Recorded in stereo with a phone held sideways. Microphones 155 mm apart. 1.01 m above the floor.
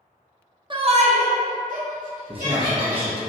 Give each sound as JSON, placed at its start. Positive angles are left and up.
{"t": 0.7, "sound": "a shout", "side_deg": -35, "distance_m": 0.5}
{"t": 2.3, "sound": "a man speaking", "side_deg": -40, "distance_m": 0.6}